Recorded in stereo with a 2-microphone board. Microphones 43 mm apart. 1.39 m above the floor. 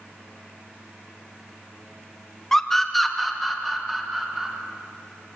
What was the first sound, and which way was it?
A scream, 15° left (ahead or behind).